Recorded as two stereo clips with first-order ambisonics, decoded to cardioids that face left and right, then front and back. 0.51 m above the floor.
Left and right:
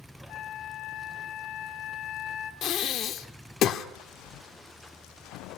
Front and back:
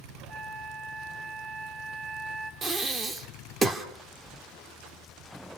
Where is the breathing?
115° left, 1.3 m.